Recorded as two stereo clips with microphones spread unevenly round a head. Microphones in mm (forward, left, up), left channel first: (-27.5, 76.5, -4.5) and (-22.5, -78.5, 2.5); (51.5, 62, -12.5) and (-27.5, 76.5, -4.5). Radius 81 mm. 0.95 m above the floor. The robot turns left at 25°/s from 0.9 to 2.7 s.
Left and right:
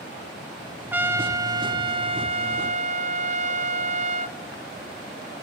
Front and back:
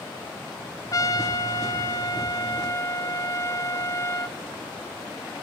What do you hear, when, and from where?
0.9 s a trumpet: 10° right, 1.1 m; by 4.4 s 55° right, 1.1 m